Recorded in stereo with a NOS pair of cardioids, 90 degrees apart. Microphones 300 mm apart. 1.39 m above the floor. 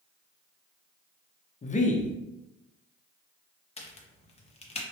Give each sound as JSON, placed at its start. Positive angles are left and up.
{"t": 1.6, "sound": "a man speaking", "azimuth_deg": 25, "distance_m": 0.6}
{"t": 3.8, "sound": "a crack", "azimuth_deg": 20, "distance_m": 0.6}